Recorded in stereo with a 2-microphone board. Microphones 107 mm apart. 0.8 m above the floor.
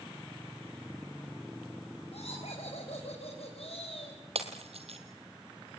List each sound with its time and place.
2.1 s laughter: 75° left (ahead or behind), 4.5 m; by 4.2 s 65° left (ahead or behind), 4 m
4.3 s breaking glass: 70° right (ahead or behind), 2.5 m